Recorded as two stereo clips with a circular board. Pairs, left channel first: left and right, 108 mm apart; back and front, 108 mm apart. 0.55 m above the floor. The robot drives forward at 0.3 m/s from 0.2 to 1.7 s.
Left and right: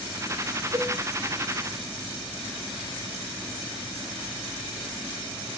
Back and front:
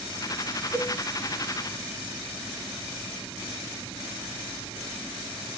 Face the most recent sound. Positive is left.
turn(degrees=-115)